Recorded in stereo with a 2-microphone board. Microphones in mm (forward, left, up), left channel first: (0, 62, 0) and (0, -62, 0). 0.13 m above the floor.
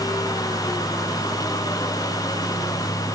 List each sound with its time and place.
Only background noise.